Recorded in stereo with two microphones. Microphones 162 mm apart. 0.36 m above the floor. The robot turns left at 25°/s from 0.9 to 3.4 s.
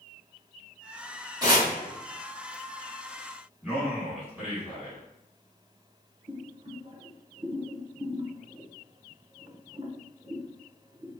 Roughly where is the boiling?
Right.